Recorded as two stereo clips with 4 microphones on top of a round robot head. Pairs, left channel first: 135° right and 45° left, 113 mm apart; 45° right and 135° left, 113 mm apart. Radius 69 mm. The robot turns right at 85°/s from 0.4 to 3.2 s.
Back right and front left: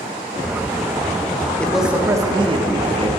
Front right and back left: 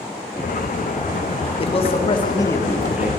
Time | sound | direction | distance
1.6 | a man speaking | 60° right | 1.6 m